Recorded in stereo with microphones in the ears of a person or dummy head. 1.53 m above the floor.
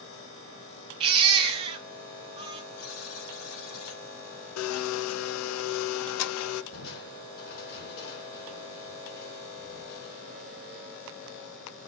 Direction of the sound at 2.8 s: 80° left.